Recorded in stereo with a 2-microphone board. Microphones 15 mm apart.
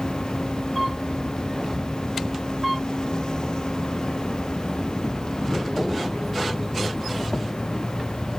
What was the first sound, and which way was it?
An insect, 55° left (ahead or behind).